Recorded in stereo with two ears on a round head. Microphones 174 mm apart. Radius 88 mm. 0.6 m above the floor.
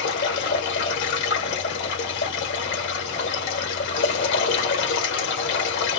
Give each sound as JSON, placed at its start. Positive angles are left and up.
{"t": 0.0, "sound": "running water", "side_deg": 60, "distance_m": 1.7}